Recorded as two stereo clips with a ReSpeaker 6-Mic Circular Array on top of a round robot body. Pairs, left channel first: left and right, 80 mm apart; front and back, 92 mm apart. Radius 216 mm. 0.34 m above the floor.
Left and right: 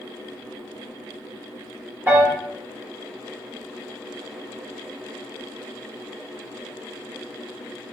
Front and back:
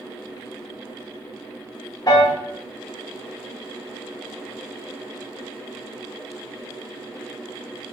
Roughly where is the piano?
Ahead right.